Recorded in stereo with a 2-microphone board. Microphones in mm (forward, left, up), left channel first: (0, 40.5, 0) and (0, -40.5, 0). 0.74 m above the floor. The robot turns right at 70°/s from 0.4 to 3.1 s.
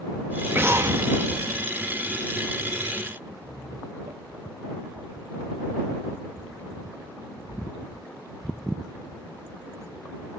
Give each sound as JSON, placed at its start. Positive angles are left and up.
{"t": 0.5, "sound": "an explosion", "azimuth_deg": -135}
{"t": 3.4, "sound": "laughter", "side_deg": -70}